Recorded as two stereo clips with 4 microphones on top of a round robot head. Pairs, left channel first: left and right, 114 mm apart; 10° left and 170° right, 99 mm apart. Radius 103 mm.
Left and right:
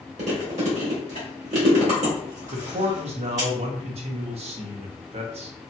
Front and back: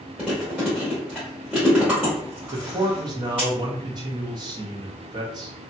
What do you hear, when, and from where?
0.2 s chewing: 85° right, 1.1 m
2.5 s a man speaking: 120° right, 0.6 m